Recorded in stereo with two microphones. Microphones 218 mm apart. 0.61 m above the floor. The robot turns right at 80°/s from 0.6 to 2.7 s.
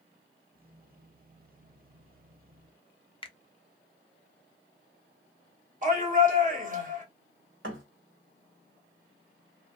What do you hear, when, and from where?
3.2 s a finger snap: 25° left (ahead or behind), 0.5 m
5.8 s a shout: 40° right (ahead or behind), 1.4 m
7.6 s a thud: 65° right (ahead or behind), 1.1 m